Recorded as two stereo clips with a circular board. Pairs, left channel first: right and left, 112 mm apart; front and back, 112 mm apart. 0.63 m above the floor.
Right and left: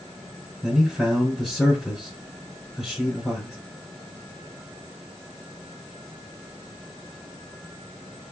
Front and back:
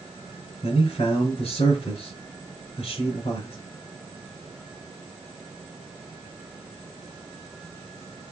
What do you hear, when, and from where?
0.6 s a man speaking: straight ahead, 3 m